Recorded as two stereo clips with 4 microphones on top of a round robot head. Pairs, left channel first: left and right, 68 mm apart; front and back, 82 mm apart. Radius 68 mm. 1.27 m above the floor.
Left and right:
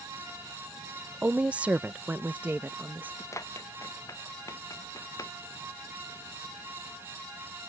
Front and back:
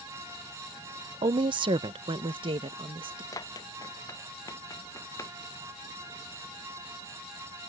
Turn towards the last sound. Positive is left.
turn(degrees=55)